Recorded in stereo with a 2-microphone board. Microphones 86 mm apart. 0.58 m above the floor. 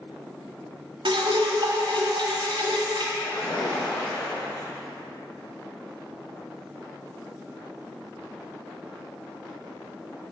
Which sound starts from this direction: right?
Dripping, at 1.1 s.